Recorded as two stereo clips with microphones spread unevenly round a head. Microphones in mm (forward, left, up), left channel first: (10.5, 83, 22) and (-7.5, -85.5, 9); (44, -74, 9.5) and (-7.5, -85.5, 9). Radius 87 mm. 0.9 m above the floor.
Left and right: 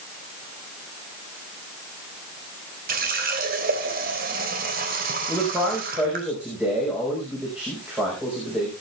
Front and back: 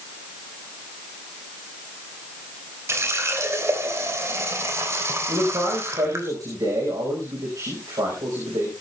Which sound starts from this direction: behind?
A man speaking, at 5.3 s.